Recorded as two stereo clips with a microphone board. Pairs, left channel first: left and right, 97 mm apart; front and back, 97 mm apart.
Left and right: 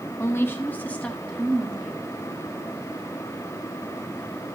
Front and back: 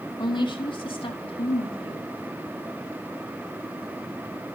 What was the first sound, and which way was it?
A woman speaking, 30° left.